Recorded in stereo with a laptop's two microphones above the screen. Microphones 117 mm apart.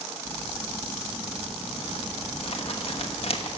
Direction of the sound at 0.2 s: 55° left (ahead or behind).